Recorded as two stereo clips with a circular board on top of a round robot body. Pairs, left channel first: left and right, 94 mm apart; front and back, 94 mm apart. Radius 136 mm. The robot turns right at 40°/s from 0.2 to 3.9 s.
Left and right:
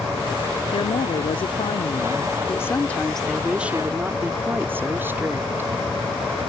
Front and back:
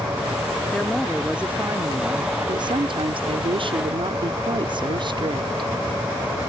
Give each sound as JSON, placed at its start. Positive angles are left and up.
{"t": 0.7, "sound": "a woman speaking", "azimuth_deg": 75}